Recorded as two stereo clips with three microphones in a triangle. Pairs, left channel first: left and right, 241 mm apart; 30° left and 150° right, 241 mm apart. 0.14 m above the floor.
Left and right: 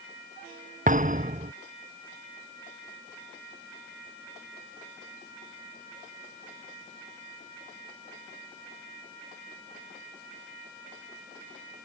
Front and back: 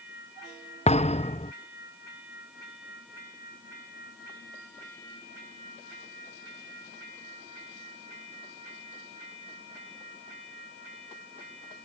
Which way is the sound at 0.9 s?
35° right.